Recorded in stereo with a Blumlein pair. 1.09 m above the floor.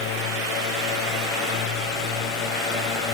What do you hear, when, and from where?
0.0 s a drone: 40° left; by 3.1 s 30° left